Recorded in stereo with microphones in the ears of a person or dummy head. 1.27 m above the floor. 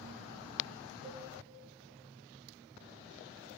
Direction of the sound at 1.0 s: 70° right (ahead or behind).